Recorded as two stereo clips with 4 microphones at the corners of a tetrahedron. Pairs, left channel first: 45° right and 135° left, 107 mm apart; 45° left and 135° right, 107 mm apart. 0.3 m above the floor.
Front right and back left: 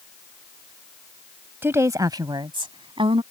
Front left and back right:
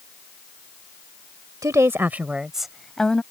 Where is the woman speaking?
170° right; by 3.2 s 125° left.